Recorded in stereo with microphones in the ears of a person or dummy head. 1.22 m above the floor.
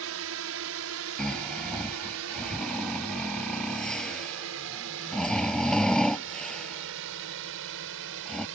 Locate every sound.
0.0 s a drone: 65° right (ahead or behind); by 8.6 s 70° right (ahead or behind)
1.2 s snoring: centre (ahead or behind)